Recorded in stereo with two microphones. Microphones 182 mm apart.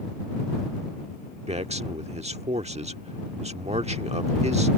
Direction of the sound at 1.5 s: 35° right (ahead or behind).